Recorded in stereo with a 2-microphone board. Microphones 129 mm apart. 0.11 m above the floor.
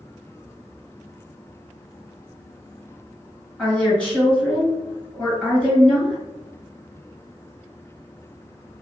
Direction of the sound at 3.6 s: 10° left (ahead or behind).